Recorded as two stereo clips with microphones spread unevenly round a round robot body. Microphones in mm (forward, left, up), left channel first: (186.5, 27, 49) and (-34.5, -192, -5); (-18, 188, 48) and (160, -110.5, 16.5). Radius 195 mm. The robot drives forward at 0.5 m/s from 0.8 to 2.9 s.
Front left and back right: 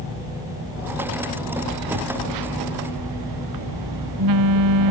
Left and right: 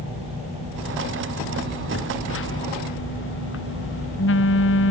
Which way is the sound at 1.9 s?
175° right.